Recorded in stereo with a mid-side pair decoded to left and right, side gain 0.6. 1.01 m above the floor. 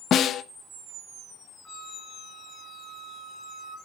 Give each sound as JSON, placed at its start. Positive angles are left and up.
{"t": 0.1, "sound": "a snare drum", "azimuth_deg": 50, "distance_m": 0.7}
{"t": 1.6, "sound": "a flute", "azimuth_deg": 25, "distance_m": 1.7}